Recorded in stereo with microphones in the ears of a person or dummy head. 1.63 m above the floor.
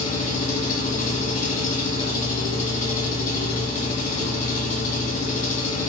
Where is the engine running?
45° left (ahead or behind), 1.0 m.